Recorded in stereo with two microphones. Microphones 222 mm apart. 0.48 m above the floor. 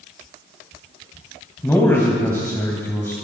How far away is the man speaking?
About 2.5 m.